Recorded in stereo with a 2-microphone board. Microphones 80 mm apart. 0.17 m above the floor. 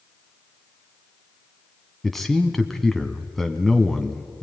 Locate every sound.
2.0 s a man speaking: centre (ahead or behind), 1.2 m